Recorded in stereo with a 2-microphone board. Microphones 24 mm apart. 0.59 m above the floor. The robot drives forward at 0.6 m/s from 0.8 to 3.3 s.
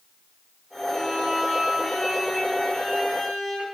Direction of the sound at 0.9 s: 10° left (ahead or behind).